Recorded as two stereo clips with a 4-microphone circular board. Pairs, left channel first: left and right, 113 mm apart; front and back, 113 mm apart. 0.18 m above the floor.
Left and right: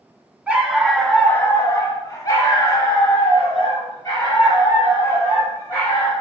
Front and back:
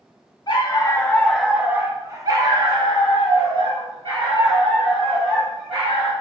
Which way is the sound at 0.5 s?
15° right.